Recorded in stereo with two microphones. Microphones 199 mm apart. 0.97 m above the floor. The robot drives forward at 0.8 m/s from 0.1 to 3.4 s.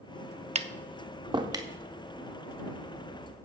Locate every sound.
0.6 s tapping: 35° right (ahead or behind), 0.5 m; by 1.7 s 20° right (ahead or behind), 0.9 m